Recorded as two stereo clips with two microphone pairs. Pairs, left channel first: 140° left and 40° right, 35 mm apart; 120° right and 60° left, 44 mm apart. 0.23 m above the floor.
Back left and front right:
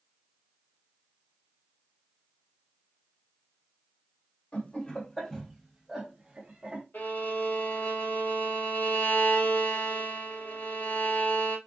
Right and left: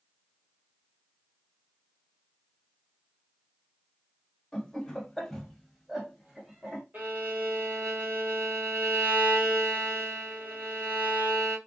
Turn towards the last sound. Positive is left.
turn(degrees=105)